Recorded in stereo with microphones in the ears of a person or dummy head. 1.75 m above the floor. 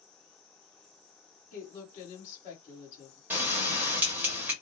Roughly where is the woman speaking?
Left.